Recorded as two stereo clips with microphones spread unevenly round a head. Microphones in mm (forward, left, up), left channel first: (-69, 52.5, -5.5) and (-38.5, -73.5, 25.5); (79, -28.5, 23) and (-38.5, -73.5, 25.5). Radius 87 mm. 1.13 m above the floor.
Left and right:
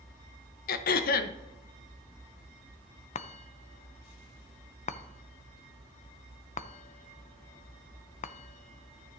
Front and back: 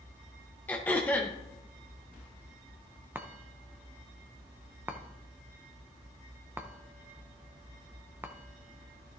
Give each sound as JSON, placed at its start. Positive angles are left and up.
{"t": 0.7, "sound": "throat clearing", "azimuth_deg": 100, "distance_m": 0.6}
{"t": 3.1, "sound": "a chime", "azimuth_deg": 125, "distance_m": 0.5}